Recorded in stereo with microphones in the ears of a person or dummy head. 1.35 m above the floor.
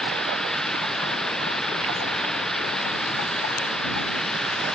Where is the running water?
5° left (ahead or behind).